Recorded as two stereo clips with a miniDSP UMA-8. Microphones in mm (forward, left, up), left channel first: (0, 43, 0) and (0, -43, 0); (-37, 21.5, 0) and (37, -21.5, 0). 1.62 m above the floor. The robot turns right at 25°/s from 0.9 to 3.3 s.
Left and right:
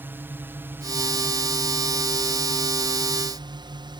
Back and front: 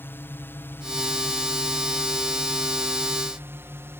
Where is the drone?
150° right; by 4.0 s 90° right.